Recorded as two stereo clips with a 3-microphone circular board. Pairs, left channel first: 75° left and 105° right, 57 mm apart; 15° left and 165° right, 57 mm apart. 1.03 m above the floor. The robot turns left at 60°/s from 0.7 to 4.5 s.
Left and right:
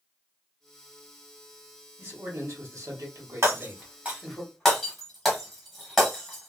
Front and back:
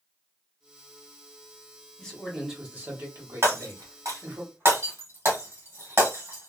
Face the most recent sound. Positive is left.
turn(degrees=165)